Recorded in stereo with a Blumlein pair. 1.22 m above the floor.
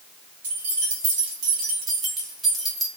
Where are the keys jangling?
60° right, 1.4 m; by 2.9 s 5° left, 0.9 m.